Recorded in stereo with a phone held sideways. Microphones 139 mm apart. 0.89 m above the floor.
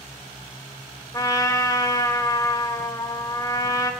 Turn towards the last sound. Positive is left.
turn(degrees=25)  # may be behind; listen again after turning